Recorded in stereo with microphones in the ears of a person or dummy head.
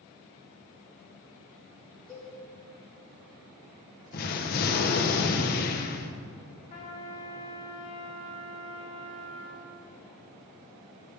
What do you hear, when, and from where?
2.1 s a cowbell: centre (ahead or behind), 4 m
4.1 s an explosion: 45° left (ahead or behind), 0.9 m
6.7 s a trumpet: 35° left (ahead or behind), 2 m